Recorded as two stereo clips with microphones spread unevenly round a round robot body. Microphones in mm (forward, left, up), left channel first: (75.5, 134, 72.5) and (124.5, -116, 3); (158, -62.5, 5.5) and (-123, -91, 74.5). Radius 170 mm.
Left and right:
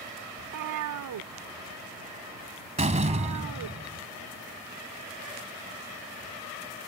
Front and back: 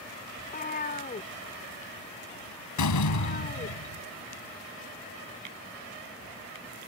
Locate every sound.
0.4 s a cat meowing: 60° right
2.8 s a door slam: 15° right